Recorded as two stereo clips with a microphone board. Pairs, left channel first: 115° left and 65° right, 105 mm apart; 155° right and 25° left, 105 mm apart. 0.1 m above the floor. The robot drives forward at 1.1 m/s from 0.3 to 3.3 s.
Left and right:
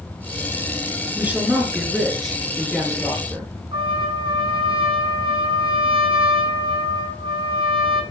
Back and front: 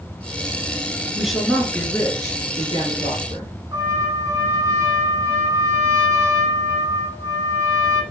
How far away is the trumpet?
About 1.3 m.